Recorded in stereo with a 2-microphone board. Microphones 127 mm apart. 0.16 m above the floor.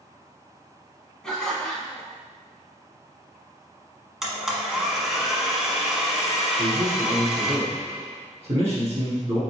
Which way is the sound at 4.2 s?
5° right (ahead or behind).